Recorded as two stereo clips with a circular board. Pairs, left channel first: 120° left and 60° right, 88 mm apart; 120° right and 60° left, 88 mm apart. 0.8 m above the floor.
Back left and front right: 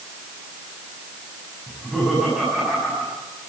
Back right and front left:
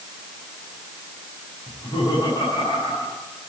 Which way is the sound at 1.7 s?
150° right.